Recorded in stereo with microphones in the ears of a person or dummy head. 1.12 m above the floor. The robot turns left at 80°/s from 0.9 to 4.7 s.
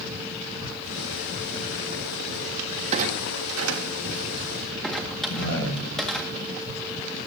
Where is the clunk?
40° right (ahead or behind), 1.9 m; by 6.3 s centre (ahead or behind), 1.9 m.